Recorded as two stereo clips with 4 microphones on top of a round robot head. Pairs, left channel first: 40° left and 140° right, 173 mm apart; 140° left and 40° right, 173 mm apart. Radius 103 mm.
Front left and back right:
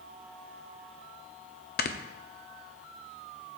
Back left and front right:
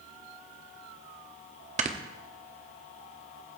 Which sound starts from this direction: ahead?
Snoring, at 1.8 s.